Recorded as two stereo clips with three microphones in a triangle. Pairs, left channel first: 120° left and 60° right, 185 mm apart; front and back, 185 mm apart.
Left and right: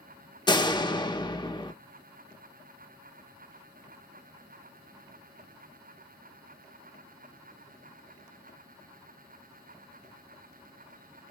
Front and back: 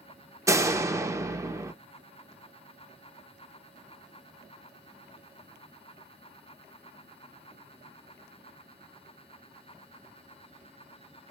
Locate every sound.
0.5 s a door slam: 130° left, 0.7 m